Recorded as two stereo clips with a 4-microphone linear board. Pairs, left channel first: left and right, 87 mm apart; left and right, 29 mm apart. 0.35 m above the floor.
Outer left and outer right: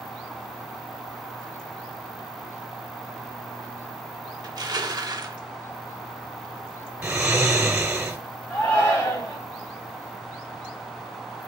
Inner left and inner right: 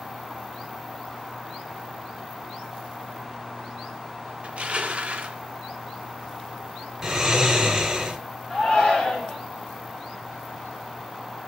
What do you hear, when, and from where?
4.4 s crushing: 50° right (ahead or behind), 0.6 m
7.0 s snoring: 20° right (ahead or behind), 0.8 m
8.5 s a shout: 30° left (ahead or behind), 2.5 m